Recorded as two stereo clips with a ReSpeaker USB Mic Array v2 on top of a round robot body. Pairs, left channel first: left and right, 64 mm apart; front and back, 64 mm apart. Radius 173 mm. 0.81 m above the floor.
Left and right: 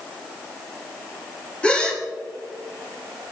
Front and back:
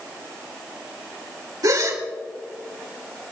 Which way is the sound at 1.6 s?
160° left.